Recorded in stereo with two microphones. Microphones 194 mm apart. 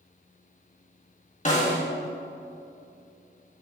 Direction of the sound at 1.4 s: 35° left (ahead or behind).